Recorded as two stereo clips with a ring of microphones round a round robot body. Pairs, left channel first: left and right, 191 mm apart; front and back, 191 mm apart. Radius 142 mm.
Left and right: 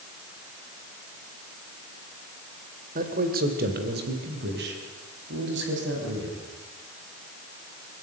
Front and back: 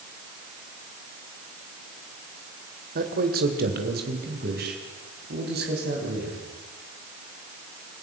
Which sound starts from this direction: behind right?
A man speaking, at 3.0 s.